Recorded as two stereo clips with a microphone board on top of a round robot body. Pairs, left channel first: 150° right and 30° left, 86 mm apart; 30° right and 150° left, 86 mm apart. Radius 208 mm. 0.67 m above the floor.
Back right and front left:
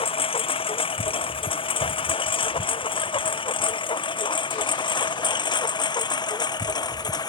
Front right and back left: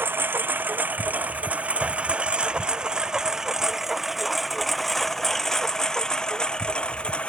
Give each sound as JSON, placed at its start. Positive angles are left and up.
{"t": 0.0, "sound": "a lawn mower", "azimuth_deg": -140}